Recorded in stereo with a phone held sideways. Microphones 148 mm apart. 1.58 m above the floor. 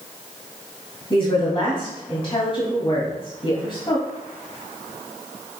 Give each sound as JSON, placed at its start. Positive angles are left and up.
{"t": 1.1, "sound": "a woman speaking", "side_deg": 35, "distance_m": 2.5}